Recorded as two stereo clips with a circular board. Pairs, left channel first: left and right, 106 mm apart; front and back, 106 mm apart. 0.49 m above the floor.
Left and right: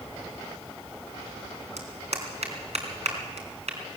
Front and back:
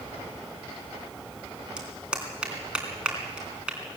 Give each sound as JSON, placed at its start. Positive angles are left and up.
{"t": 1.8, "sound": "a clap", "azimuth_deg": -100, "distance_m": 3.5}